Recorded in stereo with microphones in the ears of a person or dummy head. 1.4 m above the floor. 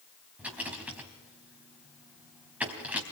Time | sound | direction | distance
0.4 | a rattle | 5° right (ahead or behind) | 3 m